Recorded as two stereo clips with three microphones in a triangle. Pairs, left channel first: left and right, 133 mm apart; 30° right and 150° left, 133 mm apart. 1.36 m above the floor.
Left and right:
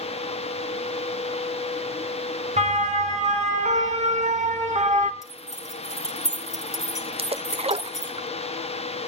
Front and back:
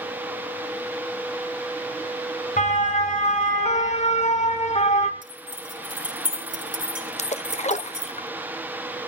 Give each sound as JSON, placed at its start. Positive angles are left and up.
{"t": 2.6, "sound": "a siren", "azimuth_deg": -55, "distance_m": 3.5}
{"t": 5.2, "sound": "keys jangling", "azimuth_deg": 155, "distance_m": 5.0}
{"t": 7.2, "sound": "a splash", "azimuth_deg": -55, "distance_m": 0.8}